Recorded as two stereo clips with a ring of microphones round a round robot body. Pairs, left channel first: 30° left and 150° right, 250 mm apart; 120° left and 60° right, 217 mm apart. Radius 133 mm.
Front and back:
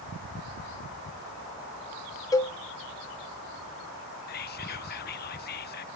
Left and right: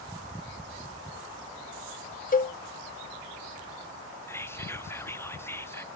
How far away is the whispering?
About 0.6 m.